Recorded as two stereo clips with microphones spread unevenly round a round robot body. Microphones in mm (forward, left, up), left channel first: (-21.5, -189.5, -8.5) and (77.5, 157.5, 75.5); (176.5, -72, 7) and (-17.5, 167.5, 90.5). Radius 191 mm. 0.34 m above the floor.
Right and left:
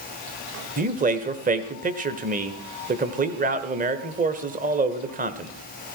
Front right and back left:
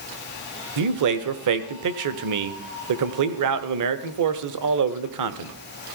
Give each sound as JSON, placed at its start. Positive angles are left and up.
{"t": 0.8, "sound": "a man speaking", "azimuth_deg": 150, "distance_m": 1.1}